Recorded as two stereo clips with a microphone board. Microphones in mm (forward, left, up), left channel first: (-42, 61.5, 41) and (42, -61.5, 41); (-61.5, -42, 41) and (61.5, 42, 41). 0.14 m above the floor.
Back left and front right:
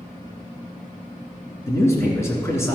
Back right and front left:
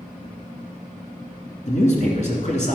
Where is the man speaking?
165° right, 2 m.